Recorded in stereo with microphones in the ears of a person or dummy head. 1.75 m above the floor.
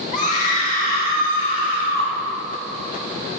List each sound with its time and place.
0.1 s a scream: 50° left (ahead or behind), 3 m; by 2.1 s 55° left (ahead or behind), 4.5 m